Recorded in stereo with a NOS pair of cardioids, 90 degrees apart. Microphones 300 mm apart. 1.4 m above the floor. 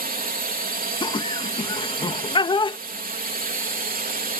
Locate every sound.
0.0 s a drone: 30° right
1.0 s laughter: 15° left